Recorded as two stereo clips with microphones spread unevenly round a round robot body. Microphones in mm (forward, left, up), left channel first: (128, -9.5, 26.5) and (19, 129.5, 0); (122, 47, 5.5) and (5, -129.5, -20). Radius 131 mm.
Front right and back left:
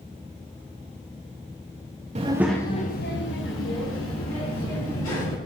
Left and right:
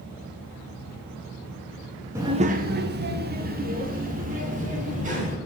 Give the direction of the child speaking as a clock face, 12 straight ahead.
6 o'clock.